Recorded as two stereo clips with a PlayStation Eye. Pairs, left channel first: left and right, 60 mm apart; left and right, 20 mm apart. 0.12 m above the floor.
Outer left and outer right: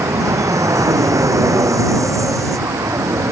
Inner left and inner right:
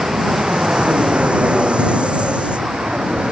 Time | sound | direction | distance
0.0 | an aircraft | 65° right (ahead or behind) | ?